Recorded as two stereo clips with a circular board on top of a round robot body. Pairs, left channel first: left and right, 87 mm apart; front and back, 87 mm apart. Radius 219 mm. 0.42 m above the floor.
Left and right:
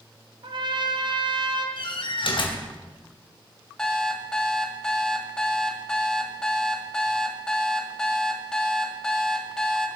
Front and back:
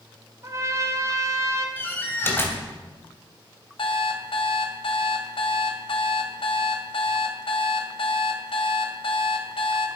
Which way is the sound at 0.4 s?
125° right.